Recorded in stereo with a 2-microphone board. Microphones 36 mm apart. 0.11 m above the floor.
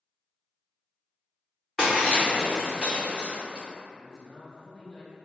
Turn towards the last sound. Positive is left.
turn(degrees=25)  # may be behind; listen again after turning